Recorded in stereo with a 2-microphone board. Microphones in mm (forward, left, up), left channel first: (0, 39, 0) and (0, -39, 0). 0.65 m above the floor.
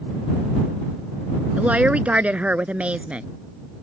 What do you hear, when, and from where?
1.6 s a woman speaking: 15° right (ahead or behind)